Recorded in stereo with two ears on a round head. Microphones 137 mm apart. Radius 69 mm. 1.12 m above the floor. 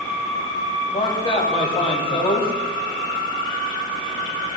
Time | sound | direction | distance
0.9 | a man speaking | 35° left (ahead or behind) | 6 m